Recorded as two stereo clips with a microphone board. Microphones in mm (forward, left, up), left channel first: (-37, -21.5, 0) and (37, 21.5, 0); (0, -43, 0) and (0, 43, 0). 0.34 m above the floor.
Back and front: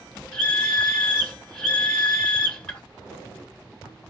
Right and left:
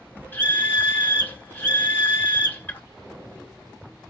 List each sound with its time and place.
0.3 s a scream: 95° right, 0.9 m